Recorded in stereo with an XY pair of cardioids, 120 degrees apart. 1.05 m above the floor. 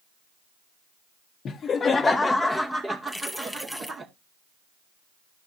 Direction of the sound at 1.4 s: 50° left.